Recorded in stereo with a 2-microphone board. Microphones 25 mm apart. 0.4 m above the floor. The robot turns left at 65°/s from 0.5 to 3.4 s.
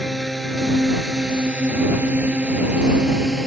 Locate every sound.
0.0 s a drone: centre (ahead or behind); by 3.5 s 15° right (ahead or behind)